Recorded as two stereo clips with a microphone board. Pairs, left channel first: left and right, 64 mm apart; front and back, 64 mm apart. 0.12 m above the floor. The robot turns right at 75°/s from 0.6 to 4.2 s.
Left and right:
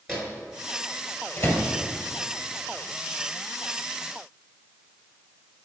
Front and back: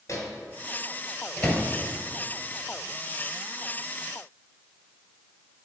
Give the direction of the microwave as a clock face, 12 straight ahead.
12 o'clock.